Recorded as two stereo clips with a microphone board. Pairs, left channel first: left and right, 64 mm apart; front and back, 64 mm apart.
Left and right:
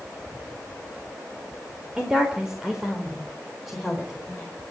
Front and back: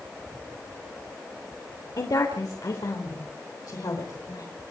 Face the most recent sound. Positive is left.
turn(degrees=0)